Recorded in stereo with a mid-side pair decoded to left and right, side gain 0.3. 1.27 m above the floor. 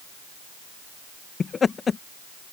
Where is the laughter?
55° left.